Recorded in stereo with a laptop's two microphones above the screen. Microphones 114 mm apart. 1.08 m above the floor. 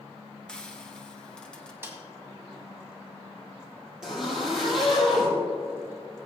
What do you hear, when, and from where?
0.5 s frying: 5° left (ahead or behind), 0.9 m
1.8 s a snare drum: 20° right (ahead or behind), 2 m
4.0 s a zipper: 5° right (ahead or behind), 5 m